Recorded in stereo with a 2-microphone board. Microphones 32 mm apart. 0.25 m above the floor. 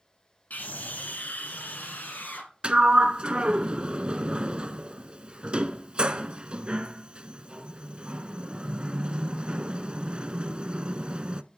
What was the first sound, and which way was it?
A scream, 60° left (ahead or behind).